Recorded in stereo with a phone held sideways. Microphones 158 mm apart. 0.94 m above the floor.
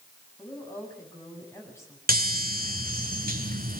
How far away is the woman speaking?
About 7 m.